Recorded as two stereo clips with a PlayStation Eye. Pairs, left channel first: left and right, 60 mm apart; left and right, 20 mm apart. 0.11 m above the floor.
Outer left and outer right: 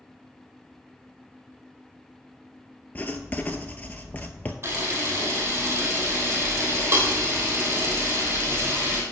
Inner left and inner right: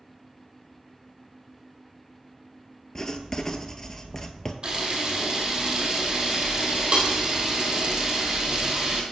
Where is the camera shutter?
40° right (ahead or behind), 2.5 m.